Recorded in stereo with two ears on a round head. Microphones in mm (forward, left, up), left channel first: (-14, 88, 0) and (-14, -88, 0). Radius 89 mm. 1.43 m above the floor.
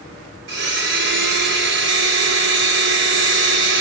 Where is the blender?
60° right (ahead or behind), 2.5 m.